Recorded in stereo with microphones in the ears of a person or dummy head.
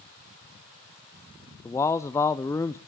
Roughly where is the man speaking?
Centre.